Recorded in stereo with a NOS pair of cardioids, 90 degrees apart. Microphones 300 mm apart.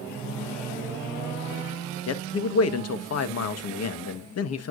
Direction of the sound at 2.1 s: 55° left.